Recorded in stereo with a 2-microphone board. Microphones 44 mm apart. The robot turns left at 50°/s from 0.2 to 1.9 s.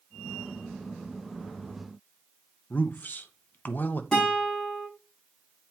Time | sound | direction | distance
2.7 | a man speaking | 40° left (ahead or behind) | 0.8 m
4.1 | a guitar | 10° left (ahead or behind) | 5.5 m